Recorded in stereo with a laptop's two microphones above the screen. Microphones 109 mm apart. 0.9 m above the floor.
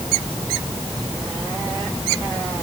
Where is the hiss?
No hiss in this recording.